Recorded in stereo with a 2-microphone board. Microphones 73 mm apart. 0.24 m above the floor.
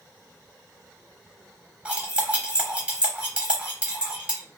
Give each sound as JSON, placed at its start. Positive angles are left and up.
{"t": 1.9, "sound": "cutlery clinking", "side_deg": -15, "distance_m": 0.8}